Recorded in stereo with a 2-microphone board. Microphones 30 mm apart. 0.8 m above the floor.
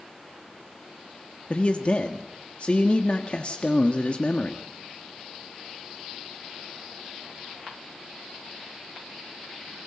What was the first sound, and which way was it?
A man speaking, 40° left (ahead or behind).